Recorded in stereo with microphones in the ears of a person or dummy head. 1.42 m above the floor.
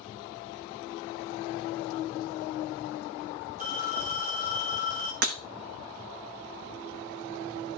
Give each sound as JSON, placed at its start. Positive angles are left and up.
{"t": 3.6, "sound": "a phone ringing", "side_deg": -45, "distance_m": 2.0}
{"t": 5.2, "sound": "breaking glass", "side_deg": -55, "distance_m": 0.9}